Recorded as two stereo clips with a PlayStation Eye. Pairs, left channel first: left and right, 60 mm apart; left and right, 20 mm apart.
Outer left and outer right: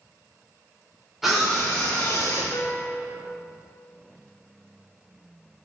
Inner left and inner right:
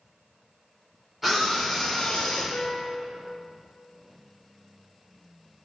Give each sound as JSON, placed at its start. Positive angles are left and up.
{"t": 1.2, "sound": "a scream", "side_deg": -5, "distance_m": 1.2}
{"t": 2.5, "sound": "a piano", "side_deg": 85, "distance_m": 0.6}